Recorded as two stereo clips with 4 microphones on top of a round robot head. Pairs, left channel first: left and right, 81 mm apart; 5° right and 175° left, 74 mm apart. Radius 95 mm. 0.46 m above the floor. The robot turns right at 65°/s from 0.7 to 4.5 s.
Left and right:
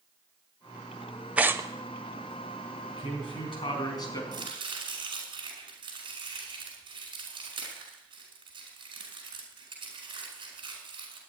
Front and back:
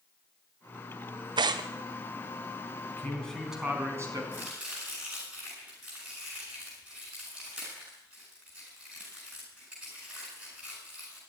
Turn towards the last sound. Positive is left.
turn(degrees=-110)